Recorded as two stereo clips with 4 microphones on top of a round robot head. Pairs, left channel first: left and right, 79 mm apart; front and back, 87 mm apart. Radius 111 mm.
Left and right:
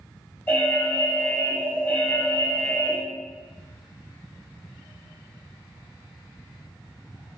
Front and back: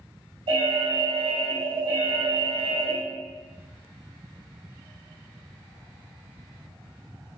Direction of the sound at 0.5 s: 155° left.